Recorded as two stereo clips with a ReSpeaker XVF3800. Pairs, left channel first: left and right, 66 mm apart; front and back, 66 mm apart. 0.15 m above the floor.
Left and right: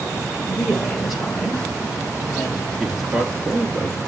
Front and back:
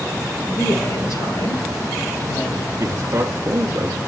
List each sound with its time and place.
0.5 s a woman speaking: 5° left, 3 m; by 2.7 s straight ahead, 4 m
2.8 s a man speaking: straight behind, 1.6 m